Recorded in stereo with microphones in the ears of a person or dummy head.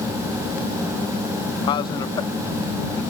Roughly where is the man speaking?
Left.